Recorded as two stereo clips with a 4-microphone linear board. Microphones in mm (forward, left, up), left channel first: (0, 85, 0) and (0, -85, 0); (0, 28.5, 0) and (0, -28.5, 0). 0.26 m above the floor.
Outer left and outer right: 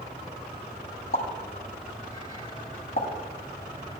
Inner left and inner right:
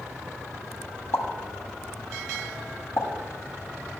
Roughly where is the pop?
Left.